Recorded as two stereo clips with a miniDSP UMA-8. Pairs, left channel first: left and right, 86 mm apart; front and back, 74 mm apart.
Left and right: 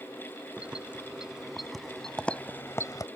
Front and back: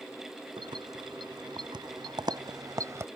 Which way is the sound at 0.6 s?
170° right.